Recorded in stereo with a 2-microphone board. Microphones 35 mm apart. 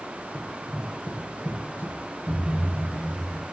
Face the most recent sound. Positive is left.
turn(degrees=50)  # may be behind; listen again after turning